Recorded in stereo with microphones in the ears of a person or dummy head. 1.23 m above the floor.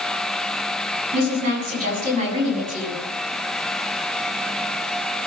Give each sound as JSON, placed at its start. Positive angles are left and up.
{"t": 1.1, "sound": "a woman speaking", "side_deg": -50, "distance_m": 8.5}